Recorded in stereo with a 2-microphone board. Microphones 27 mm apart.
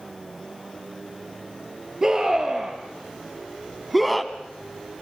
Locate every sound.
2.0 s a scream: 20° right (ahead or behind), 3.5 m; by 5.0 s 25° left (ahead or behind), 1.4 m